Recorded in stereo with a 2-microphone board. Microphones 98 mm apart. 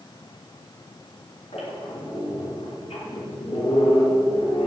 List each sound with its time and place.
1.5 s a squeak: 80° left, 4 m